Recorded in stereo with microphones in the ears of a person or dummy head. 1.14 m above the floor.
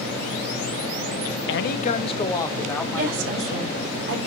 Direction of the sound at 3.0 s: 80° right.